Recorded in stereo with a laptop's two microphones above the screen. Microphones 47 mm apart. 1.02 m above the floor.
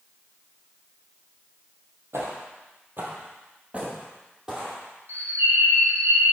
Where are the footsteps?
60° right (ahead or behind), 1.9 m; by 4.8 s 5° right (ahead or behind), 2 m.